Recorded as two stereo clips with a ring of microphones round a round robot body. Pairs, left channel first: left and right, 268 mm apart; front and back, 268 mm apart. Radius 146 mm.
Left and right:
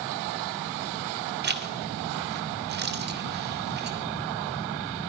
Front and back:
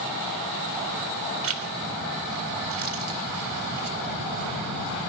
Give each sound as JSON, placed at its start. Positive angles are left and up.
{"t": 1.4, "sound": "a zipper", "azimuth_deg": -145, "distance_m": 1.7}